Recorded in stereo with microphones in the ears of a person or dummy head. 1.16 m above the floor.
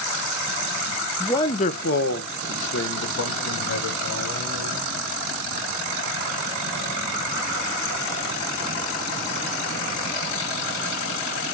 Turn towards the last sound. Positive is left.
turn(degrees=80)